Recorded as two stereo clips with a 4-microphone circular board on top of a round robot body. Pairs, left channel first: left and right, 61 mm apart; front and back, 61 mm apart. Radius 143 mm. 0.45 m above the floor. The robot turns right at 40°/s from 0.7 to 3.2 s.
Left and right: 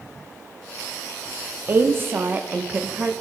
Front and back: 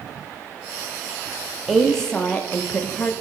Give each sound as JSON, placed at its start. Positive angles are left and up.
{"t": 1.7, "sound": "a woman speaking", "azimuth_deg": -85, "distance_m": 0.8}